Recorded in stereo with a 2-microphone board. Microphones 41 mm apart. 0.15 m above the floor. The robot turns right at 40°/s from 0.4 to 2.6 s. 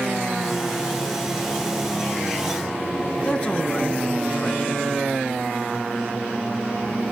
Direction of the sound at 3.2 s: 25° left (ahead or behind).